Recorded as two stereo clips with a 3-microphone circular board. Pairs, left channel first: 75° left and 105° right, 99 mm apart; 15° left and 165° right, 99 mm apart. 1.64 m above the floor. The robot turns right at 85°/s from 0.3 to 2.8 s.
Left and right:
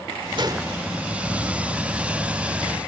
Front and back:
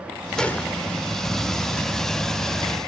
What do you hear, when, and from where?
0.4 s a gunshot: 70° right; by 0.8 s 35° right